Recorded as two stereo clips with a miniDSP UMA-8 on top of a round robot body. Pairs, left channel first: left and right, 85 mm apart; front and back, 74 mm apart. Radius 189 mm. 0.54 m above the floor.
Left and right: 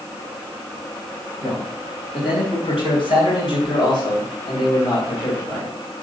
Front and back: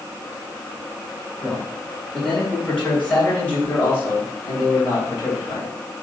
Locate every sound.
1.4 s a man speaking: 90° left, 3.5 m; by 5.8 s 50° left, 3.5 m